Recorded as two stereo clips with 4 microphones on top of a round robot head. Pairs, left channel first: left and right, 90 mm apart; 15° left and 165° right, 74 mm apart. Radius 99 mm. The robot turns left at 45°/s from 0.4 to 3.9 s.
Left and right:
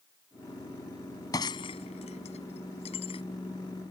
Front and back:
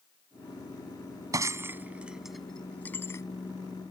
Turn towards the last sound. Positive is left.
turn(degrees=35)